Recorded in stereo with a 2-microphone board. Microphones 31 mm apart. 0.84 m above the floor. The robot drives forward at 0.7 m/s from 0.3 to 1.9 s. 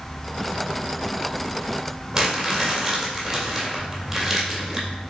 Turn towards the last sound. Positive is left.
turn(degrees=-5)  # may be behind; listen again after turning